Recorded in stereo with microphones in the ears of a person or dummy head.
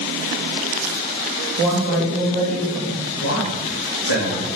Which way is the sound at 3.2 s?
65° left (ahead or behind).